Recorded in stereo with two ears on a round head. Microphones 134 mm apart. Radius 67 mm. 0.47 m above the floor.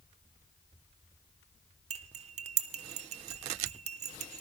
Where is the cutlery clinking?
50° right (ahead or behind), 0.8 m.